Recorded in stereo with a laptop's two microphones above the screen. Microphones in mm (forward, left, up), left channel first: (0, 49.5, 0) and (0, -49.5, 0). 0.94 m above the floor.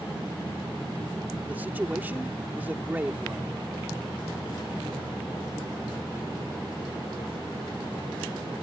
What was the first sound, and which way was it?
A man speaking, 20° right (ahead or behind).